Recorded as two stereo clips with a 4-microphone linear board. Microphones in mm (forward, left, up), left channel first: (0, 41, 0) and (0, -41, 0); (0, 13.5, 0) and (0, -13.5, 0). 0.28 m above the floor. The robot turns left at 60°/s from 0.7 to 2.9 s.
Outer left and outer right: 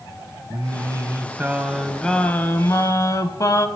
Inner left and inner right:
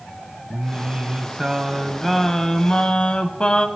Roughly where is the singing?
Right.